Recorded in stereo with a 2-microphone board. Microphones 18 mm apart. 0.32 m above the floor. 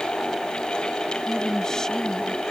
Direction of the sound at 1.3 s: 30° left (ahead or behind).